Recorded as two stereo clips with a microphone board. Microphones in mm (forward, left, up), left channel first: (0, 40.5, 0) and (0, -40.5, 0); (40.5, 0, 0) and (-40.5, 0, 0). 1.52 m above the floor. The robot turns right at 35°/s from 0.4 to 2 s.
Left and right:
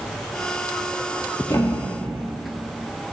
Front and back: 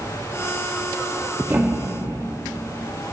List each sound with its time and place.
1.5 s a thud: 125° left, 1.2 m; by 2.2 s 145° left, 1.2 m